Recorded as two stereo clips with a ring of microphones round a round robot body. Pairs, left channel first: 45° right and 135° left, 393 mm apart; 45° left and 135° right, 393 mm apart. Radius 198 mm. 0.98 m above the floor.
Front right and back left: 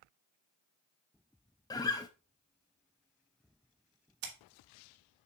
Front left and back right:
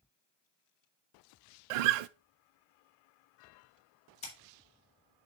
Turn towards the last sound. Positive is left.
turn(degrees=120)